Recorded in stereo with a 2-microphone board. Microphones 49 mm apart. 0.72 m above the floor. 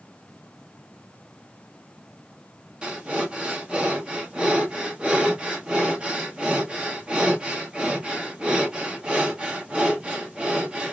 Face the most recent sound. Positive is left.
turn(degrees=-20)  # may be behind; listen again after turning